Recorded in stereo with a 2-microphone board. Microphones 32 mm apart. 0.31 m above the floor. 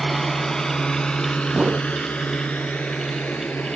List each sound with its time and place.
0.0 s a drone: 5° left (ahead or behind); by 3.8 s 65° left (ahead or behind)
1.5 s a whoosh: 35° right (ahead or behind)